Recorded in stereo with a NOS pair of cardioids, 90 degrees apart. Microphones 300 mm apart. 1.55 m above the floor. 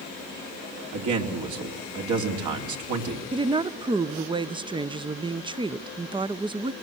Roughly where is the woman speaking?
Ahead.